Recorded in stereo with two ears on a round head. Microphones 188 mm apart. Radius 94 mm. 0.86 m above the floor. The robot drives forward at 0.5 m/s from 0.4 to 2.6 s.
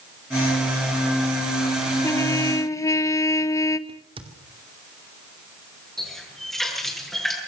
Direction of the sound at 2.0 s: 10° left (ahead or behind).